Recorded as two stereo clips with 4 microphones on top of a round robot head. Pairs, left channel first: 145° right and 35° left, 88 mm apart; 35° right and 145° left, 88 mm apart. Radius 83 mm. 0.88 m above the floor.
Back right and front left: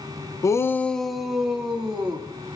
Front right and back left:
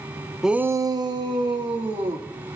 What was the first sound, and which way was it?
A shout, 130° right.